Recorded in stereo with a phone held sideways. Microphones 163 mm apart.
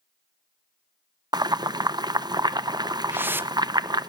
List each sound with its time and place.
1.3 s boiling: 25° right (ahead or behind), 0.6 m
3.1 s a whoosh: 10° right (ahead or behind), 0.5 m